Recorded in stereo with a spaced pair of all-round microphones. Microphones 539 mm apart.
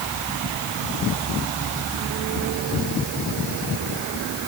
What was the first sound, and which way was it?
Only background noise.